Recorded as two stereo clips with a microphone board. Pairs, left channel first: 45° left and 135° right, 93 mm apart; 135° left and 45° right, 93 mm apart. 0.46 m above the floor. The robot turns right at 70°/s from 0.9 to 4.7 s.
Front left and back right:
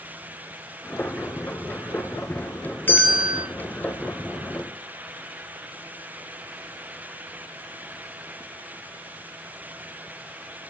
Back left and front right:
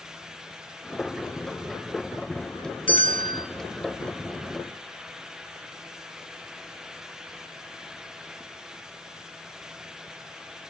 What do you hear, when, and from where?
2.9 s a bell: 115° left, 0.5 m; by 3.5 s 155° left, 0.5 m